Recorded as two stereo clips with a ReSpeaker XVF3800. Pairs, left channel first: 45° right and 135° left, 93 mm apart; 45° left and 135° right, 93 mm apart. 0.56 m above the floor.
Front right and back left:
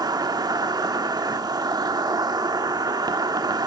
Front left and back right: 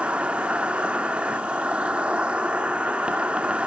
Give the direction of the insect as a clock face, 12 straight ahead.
7 o'clock.